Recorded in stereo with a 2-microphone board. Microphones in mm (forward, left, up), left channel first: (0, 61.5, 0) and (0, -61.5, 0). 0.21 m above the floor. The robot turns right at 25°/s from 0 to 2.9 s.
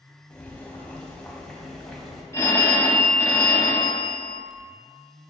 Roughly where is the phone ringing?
Left.